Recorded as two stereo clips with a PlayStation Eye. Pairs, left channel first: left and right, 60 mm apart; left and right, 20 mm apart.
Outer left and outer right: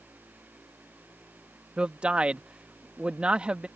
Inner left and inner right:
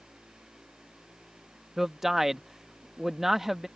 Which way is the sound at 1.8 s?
20° right (ahead or behind).